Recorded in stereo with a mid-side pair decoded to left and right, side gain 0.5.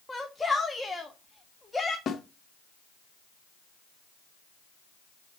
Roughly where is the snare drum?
Ahead left.